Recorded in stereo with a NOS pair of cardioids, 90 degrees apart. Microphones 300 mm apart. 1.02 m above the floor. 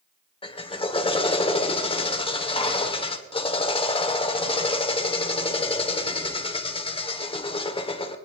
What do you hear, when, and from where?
0.4 s a drill: 15° left, 1.6 m